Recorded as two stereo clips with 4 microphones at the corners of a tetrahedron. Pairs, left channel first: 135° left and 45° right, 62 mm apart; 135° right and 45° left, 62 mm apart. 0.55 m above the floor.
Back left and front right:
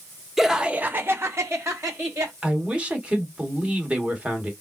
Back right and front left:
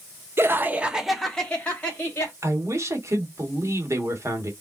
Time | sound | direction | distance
0.4 | laughter | 45° left | 0.7 m
2.4 | a man speaking | 25° left | 1.3 m